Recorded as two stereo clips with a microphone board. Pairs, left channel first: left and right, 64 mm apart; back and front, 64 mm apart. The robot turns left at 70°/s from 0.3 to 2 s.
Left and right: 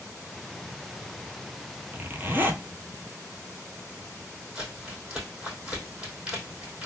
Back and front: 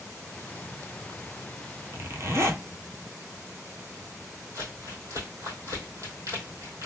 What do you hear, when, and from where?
1.9 s a zipper: 30° right, 0.6 m; by 2.6 s 40° right, 0.6 m
4.5 s crumpling: 15° right, 2.5 m